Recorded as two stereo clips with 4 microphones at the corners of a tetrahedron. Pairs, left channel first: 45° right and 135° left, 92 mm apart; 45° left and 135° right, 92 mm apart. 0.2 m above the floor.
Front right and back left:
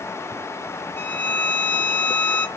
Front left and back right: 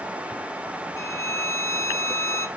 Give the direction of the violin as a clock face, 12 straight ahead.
11 o'clock.